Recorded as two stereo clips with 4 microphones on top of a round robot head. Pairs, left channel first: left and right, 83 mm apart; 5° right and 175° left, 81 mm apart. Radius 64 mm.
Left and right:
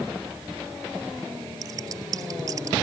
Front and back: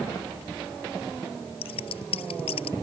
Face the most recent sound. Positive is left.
turn(degrees=-30)